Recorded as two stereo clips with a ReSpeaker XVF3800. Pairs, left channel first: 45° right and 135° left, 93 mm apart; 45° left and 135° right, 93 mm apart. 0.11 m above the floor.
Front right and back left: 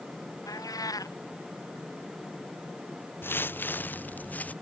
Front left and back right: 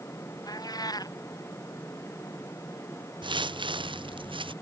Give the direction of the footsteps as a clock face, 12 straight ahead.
4 o'clock.